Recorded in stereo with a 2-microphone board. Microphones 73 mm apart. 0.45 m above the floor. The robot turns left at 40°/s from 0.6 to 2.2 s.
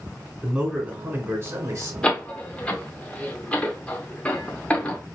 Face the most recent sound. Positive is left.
turn(degrees=15)  # may be behind; listen again after turning